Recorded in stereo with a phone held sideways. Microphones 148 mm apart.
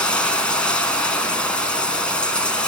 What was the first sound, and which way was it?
Running water, 5° left (ahead or behind).